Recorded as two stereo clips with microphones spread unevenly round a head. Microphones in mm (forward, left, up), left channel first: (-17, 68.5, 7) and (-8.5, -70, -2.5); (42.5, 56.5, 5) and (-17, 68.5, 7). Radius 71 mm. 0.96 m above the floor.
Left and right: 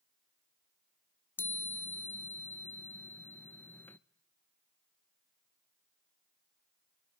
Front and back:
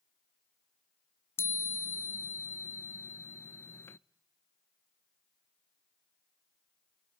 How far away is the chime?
About 0.5 m.